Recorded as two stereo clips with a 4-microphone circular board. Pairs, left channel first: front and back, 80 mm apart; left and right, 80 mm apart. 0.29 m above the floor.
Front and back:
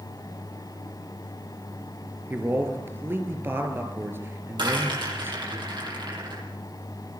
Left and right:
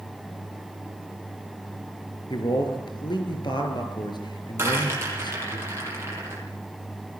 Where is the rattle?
150° right, 10 m.